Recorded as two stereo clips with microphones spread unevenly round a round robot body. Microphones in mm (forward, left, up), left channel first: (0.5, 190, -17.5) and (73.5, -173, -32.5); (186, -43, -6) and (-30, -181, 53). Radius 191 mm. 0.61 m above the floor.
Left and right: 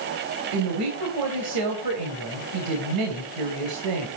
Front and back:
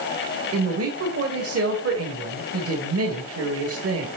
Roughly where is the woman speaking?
Behind right.